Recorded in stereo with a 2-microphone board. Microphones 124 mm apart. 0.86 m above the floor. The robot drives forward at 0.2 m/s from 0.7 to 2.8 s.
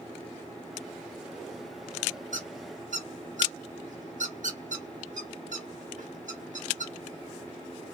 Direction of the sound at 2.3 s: 80° right.